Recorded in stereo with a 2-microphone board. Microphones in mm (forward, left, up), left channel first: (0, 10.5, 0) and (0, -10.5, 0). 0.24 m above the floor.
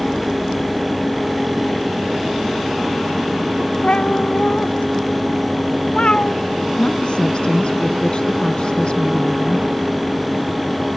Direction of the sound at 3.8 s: 65° left (ahead or behind).